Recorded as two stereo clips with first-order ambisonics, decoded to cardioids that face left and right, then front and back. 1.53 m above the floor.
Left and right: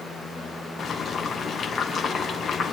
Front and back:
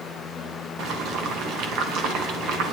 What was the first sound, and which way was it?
Boiling, 150° left.